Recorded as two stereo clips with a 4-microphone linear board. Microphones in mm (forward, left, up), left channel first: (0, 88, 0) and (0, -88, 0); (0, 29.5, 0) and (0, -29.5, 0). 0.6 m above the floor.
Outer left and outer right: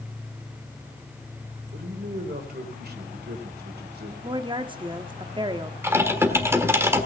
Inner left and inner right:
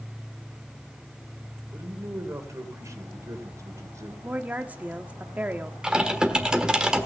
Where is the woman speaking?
30° right (ahead or behind), 0.9 m.